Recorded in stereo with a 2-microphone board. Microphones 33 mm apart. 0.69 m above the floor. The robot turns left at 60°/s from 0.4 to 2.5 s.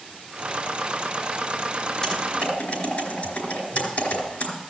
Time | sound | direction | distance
2.0 | typing on a keyboard | 20° left (ahead or behind) | 4.5 m